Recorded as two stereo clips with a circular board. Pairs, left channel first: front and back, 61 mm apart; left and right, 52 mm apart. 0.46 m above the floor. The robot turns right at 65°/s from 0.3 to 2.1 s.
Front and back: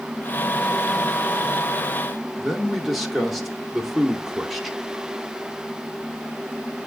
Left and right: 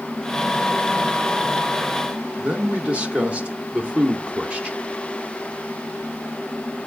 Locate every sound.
2.4 s a man speaking: 95° right, 0.8 m